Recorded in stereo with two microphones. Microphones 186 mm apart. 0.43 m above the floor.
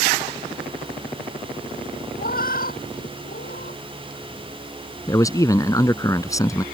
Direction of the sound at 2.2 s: 50° left (ahead or behind).